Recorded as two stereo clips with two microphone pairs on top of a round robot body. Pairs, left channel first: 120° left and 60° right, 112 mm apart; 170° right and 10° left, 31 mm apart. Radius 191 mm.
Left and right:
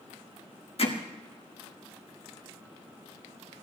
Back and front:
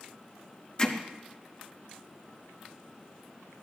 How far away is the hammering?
About 1.6 m.